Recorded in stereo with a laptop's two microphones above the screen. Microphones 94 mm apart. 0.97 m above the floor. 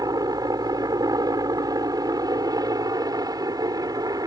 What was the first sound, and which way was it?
A helicopter, 40° right (ahead or behind).